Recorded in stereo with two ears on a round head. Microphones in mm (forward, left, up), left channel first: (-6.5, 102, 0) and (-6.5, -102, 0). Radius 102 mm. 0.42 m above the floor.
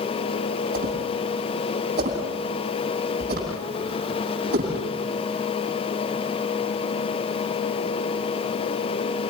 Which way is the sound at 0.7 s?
40° right (ahead or behind).